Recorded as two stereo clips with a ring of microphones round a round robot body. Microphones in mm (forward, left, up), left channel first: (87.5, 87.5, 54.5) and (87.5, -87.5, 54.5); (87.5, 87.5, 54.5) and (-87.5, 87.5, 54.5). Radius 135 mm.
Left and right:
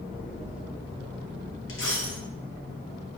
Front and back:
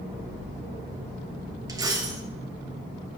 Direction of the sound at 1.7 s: 110° left.